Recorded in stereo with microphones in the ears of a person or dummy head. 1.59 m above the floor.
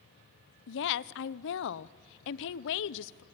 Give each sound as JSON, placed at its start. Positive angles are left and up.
{"t": 0.7, "sound": "a woman speaking", "side_deg": 70, "distance_m": 0.8}